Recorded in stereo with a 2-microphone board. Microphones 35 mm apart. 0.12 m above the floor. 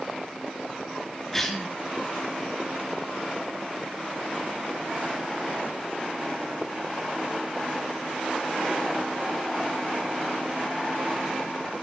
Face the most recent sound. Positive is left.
turn(degrees=10)  # may be behind; listen again after turning